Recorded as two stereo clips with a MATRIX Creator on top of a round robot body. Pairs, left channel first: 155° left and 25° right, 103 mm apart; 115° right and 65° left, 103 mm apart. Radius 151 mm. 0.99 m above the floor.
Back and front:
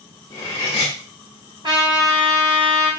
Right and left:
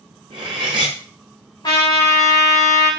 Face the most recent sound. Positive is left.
turn(degrees=-65)